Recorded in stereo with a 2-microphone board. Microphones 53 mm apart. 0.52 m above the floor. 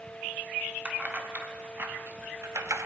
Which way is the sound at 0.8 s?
30° right (ahead or behind).